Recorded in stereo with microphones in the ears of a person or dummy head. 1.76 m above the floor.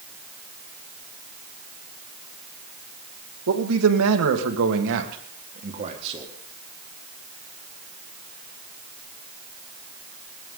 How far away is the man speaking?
About 2.5 m.